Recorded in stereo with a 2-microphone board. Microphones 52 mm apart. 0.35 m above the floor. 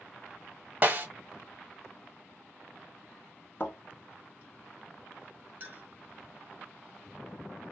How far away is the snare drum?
About 0.6 m.